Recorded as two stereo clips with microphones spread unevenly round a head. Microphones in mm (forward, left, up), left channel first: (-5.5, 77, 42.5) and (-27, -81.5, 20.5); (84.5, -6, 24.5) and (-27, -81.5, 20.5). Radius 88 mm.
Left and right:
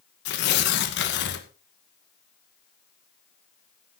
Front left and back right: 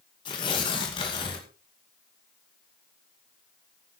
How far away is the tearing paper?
About 2 m.